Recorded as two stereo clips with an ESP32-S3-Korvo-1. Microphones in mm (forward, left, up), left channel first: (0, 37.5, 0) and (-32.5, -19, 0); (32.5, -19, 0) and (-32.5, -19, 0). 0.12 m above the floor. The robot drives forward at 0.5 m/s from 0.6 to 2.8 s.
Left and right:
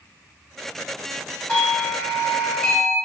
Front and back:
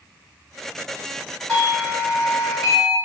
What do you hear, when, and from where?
1.5 s a doorbell: 70° left, 1.8 m; by 3.0 s 125° left, 1.9 m